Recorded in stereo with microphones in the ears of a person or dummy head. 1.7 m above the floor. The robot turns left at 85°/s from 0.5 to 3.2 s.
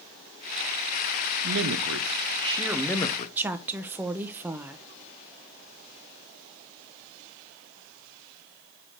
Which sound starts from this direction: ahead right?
A man speaking, at 1.4 s.